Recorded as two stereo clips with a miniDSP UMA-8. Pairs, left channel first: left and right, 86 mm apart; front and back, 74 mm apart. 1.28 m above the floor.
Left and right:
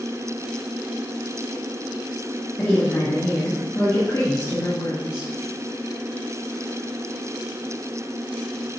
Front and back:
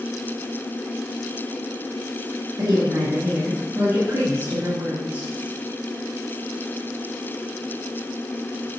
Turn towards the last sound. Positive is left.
turn(degrees=120)